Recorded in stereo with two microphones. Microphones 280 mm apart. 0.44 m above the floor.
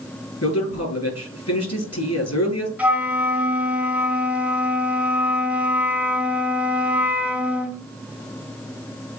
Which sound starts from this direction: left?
A man speaking, at 0.4 s.